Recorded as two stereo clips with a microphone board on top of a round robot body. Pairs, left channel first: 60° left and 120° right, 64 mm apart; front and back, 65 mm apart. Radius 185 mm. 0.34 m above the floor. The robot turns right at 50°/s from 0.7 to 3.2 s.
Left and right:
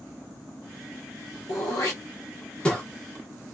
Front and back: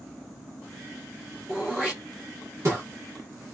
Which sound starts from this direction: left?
Throat clearing, at 1.5 s.